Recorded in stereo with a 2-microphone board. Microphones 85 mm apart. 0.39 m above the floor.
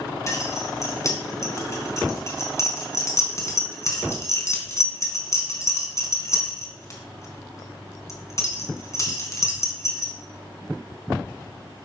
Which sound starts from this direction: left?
Keys jangling, at 0.3 s.